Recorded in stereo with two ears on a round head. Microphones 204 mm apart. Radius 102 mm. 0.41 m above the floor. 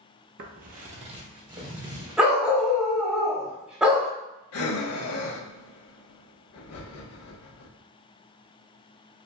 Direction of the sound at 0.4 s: 50° right (ahead or behind).